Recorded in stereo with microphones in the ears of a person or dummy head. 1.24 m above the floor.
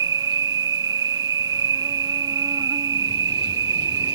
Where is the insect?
20° right (ahead or behind).